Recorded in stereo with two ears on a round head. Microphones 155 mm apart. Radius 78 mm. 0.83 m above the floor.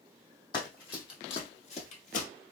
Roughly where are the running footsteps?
Left.